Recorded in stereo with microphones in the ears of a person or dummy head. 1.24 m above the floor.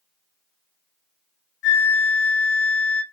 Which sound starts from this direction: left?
A flute, at 1.6 s.